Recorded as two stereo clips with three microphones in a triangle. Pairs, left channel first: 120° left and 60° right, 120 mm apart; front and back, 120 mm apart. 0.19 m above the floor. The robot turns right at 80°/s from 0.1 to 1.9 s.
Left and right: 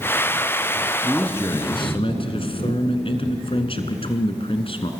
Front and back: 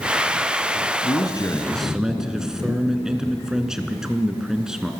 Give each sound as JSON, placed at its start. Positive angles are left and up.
{"t": 1.0, "sound": "a man speaking", "azimuth_deg": 25, "distance_m": 2.0}